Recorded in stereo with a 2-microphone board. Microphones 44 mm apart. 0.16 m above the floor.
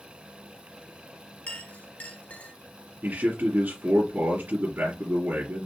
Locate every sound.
1.5 s a clink: 40° left (ahead or behind), 1.3 m
3.0 s a man speaking: 45° right (ahead or behind), 2.5 m